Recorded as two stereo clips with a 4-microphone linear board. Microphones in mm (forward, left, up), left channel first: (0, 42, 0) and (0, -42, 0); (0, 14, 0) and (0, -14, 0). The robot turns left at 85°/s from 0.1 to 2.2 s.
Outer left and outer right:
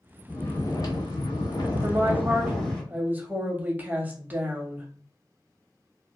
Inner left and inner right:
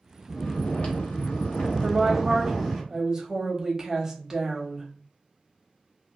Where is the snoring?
175° left, 1.0 m; by 2.8 s 10° left, 1.0 m.